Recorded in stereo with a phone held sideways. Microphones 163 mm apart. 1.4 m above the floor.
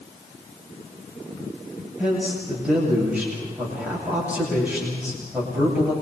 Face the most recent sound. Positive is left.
turn(degrees=-5)  # may be behind; listen again after turning